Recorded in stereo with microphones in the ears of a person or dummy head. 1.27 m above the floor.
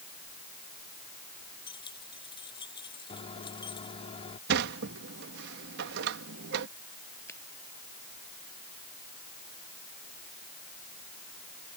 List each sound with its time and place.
1.7 s keys jangling: 25° left (ahead or behind)
3.1 s a microwave: 35° left (ahead or behind)
4.5 s a sliding door: 70° right (ahead or behind)
7.3 s a finger snap: 10° left (ahead or behind)